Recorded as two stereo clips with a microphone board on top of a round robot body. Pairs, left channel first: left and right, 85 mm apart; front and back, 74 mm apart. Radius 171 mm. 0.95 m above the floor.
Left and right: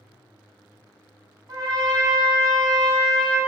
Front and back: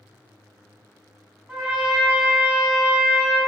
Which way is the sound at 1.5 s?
105° right.